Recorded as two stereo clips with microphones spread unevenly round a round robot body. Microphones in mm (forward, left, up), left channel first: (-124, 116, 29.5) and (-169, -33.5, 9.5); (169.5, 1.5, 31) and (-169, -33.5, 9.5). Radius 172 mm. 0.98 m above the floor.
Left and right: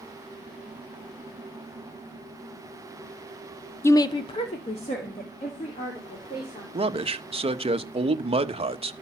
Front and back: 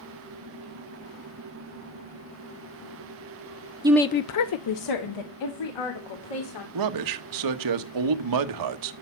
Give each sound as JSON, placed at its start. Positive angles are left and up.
{"t": 3.8, "sound": "a woman speaking", "azimuth_deg": 145, "distance_m": 0.6}
{"t": 6.7, "sound": "a man speaking", "azimuth_deg": -155, "distance_m": 1.2}